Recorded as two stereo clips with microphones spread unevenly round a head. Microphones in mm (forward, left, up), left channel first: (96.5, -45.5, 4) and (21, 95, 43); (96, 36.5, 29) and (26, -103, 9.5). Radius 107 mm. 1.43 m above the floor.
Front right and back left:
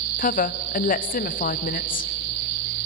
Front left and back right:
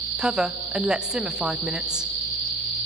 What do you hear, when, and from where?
0.2 s a woman speaking: 30° right, 0.8 m